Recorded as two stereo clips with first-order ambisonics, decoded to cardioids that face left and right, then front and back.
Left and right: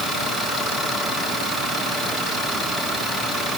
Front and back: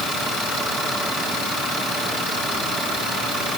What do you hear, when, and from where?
Only background noise.